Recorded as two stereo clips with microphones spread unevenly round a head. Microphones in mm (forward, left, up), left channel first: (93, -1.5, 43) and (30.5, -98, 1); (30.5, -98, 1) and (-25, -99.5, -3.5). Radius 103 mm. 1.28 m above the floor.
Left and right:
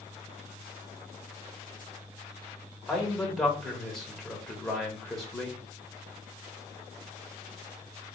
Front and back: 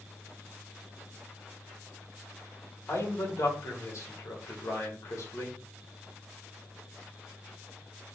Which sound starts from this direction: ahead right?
A man speaking, at 2.9 s.